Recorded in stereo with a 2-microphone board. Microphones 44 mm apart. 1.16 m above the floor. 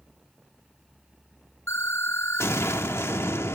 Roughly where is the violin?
I don't hear a violin.